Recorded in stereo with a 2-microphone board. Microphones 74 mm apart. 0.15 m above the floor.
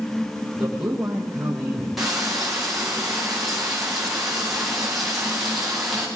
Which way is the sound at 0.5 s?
10° right (ahead or behind).